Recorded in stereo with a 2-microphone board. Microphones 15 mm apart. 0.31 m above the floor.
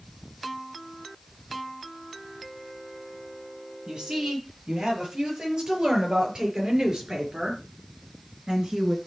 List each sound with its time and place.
3.9 s a woman speaking: 55° right (ahead or behind), 8.5 m; by 9.0 s 50° right (ahead or behind), 4.5 m